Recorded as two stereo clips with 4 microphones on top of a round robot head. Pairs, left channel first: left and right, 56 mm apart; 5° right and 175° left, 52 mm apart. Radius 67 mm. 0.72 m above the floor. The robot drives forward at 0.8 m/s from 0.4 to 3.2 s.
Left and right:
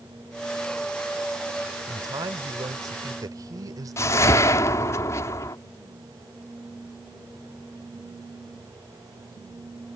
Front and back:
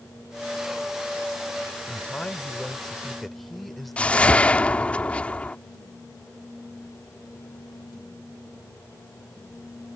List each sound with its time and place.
1.9 s a man speaking: 75° right; by 5.0 s 95° right
4.0 s a whoosh: 60° left